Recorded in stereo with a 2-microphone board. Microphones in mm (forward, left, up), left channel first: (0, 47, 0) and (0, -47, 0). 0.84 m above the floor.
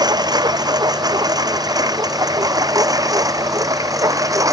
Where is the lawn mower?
40° right (ahead or behind); by 4.5 s 35° right (ahead or behind).